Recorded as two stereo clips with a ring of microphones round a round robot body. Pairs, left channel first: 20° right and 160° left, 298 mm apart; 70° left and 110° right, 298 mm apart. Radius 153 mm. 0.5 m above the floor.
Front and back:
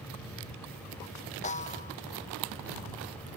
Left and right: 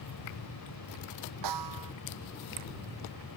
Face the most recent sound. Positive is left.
turn(degrees=-90)